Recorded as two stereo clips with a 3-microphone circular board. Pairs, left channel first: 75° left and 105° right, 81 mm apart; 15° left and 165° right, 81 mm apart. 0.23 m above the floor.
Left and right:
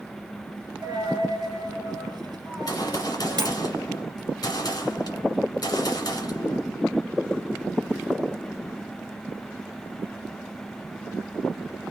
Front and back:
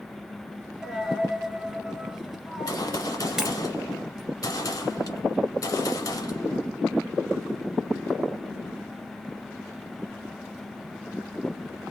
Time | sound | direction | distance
0.8 | a dropped coin | 80° right | 1.3 m
2.5 | a gunshot | 45° left | 1.3 m